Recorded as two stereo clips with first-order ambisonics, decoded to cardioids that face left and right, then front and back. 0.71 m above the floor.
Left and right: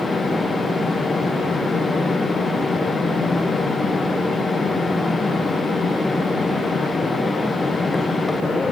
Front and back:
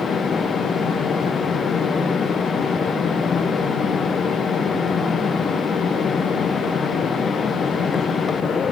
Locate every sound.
Only background noise.